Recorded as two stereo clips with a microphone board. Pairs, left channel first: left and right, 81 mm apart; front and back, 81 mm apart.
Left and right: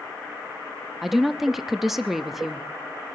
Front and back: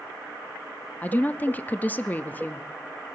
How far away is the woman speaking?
About 0.5 m.